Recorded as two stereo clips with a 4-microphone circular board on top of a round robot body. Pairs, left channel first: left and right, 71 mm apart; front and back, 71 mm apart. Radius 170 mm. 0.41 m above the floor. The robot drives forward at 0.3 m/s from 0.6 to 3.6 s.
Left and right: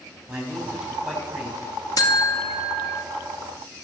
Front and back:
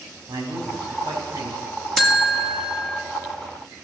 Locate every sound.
0.3 s a man speaking: 170° right, 5 m
2.0 s a buzzer: 95° left, 2.0 m; by 3.0 s 105° left, 2 m